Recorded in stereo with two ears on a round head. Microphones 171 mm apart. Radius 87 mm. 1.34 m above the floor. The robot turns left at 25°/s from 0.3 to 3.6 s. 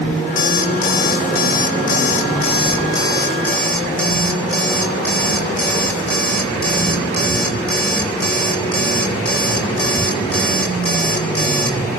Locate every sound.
0.4 s an alarm clock: 85° left, 1.0 m; by 11.8 s 5° left, 1.0 m